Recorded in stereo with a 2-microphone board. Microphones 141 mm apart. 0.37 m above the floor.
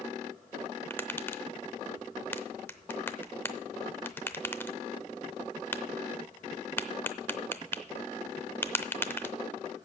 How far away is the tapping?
About 0.7 m.